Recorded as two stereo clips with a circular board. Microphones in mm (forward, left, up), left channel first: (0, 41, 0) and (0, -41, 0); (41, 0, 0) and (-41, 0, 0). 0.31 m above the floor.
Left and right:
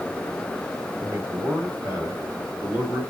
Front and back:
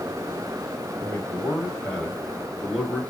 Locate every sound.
1.0 s a man speaking: 55° right, 2 m; by 3.0 s 105° right, 1.6 m